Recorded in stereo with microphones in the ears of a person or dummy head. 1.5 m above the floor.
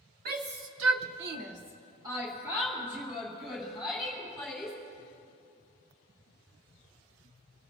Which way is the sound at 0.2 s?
50° right (ahead or behind).